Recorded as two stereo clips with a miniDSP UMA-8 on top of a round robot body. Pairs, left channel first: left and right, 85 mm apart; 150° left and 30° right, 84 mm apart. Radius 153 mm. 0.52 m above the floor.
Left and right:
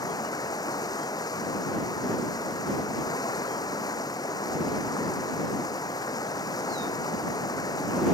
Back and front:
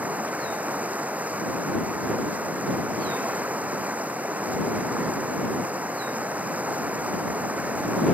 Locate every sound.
0.0 s running water: 45° left